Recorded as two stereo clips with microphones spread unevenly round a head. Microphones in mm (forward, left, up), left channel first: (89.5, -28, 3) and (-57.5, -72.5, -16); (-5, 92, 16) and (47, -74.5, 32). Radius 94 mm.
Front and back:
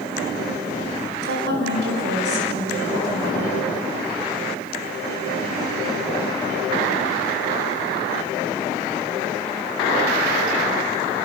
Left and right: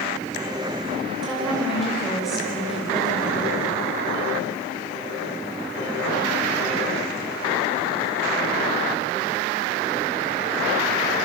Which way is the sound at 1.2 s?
160° right.